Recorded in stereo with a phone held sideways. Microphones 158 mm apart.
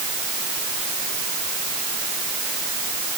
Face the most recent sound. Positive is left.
No sound to turn to.